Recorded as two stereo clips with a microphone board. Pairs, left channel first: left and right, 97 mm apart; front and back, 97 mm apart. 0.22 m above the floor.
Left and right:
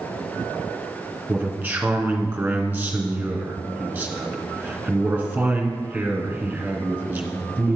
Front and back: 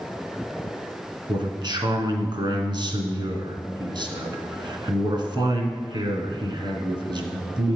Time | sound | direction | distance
1.3 | a man speaking | 165° right | 2 m